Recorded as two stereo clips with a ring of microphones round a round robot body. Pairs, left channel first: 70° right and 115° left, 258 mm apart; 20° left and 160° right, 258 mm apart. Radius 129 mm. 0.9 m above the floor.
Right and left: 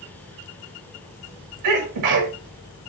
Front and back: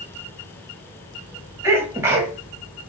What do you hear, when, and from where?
1.6 s a sneeze: 120° left, 1.4 m